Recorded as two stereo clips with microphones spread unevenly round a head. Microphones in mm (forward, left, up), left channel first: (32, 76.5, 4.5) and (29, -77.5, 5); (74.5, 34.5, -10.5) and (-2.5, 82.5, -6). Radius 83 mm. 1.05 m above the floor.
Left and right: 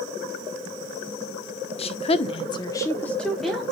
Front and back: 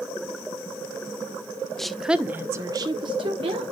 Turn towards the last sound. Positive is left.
turn(degrees=180)